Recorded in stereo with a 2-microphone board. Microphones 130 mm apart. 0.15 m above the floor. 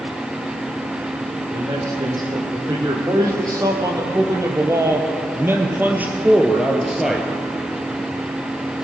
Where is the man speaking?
35° right (ahead or behind), 5 m; by 7.3 s centre (ahead or behind), 2 m.